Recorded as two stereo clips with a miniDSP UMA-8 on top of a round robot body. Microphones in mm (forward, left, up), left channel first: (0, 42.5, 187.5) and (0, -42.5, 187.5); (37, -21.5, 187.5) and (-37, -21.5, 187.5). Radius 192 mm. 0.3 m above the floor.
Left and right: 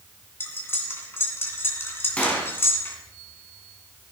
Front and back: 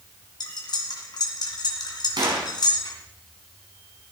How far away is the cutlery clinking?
About 2.5 m.